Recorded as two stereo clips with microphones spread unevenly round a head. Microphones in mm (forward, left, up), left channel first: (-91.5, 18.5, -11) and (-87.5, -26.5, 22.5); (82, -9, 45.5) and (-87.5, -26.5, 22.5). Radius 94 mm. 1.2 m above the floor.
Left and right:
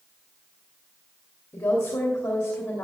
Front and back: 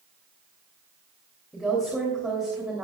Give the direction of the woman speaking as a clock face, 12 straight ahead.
9 o'clock.